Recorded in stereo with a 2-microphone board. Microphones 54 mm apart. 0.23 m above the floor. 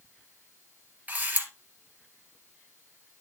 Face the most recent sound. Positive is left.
turn(degrees=-35)  # may be behind; listen again after turning